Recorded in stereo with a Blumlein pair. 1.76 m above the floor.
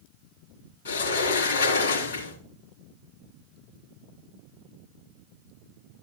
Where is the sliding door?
65° left, 4 m.